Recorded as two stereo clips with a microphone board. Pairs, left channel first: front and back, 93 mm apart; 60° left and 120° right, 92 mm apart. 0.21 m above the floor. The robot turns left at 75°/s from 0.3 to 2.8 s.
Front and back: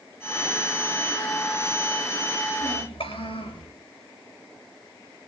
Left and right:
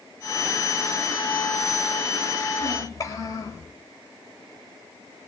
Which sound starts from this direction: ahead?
A child speaking, at 2.6 s.